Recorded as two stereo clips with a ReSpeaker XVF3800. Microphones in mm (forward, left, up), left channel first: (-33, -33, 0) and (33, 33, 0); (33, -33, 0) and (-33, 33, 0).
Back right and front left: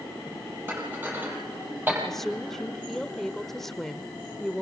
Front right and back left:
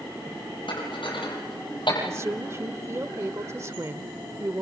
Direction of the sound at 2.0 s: 140° left.